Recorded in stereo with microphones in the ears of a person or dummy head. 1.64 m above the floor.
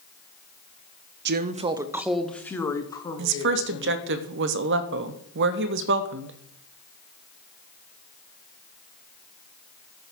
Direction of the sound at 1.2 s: 60° right (ahead or behind).